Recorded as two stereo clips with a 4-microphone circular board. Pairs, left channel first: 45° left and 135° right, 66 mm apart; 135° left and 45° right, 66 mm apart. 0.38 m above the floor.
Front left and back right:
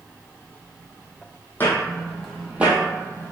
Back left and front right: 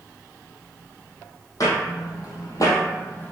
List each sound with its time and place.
1.6 s footsteps: 105° left, 0.9 m; by 3.3 s 170° right, 0.8 m